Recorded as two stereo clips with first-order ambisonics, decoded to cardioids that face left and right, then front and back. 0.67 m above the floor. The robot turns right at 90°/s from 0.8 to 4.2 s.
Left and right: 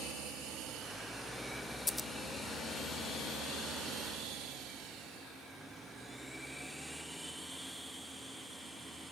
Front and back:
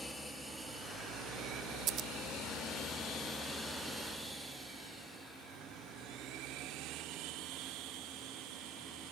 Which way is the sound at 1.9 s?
160° left.